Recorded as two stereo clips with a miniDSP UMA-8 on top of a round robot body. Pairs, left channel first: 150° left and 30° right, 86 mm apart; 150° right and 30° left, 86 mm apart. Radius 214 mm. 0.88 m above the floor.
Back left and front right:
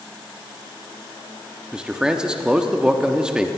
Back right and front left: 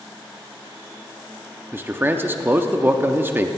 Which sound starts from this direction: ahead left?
A man speaking, at 1.7 s.